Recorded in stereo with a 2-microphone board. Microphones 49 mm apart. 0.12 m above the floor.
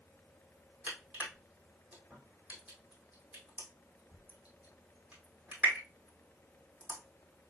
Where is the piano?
No piano in this recording.